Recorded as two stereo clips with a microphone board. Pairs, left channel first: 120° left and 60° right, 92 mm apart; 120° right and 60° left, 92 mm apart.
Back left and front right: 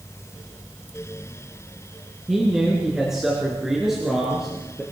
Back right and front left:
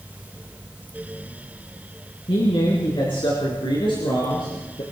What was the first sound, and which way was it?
A man speaking, 145° right.